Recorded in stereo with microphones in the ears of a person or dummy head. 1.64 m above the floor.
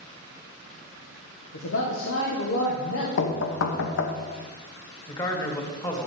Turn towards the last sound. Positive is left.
turn(degrees=20)  # may be behind; listen again after turning